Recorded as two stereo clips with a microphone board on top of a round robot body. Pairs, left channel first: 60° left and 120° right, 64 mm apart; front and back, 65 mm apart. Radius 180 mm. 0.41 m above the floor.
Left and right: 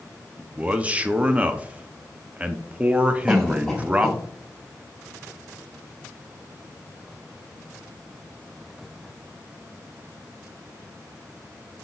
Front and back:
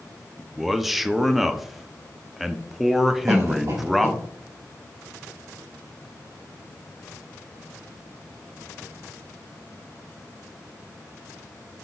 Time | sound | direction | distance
0.4 | a man speaking | 95° right | 0.8 m
3.3 | a cough | 150° left | 2.5 m